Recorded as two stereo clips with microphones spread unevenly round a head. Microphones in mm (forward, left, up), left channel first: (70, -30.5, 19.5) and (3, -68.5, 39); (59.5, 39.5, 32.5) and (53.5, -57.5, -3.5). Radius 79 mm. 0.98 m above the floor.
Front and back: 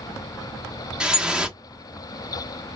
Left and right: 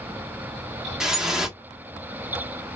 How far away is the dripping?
About 0.9 m.